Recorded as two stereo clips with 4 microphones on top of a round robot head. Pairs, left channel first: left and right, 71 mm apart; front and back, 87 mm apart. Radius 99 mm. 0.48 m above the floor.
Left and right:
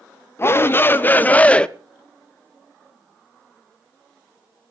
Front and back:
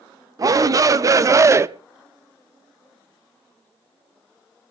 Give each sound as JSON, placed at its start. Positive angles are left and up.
{"t": 0.4, "sound": "a shout", "azimuth_deg": 140, "distance_m": 1.3}